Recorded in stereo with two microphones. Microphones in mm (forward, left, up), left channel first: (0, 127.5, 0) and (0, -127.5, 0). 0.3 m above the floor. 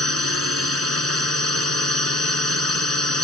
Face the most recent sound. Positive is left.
turn(degrees=-60)  # may be behind; listen again after turning